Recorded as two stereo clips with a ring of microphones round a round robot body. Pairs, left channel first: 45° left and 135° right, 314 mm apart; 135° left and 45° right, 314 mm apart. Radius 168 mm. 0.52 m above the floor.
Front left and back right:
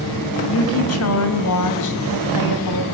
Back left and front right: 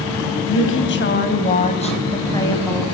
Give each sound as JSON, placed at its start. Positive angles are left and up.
{"t": 0.5, "sound": "a woman speaking", "azimuth_deg": 90, "distance_m": 3.5}